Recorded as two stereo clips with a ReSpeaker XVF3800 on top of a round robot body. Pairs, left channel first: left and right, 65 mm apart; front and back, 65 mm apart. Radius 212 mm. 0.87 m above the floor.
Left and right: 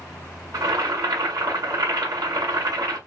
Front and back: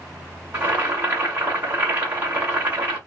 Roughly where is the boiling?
Behind right.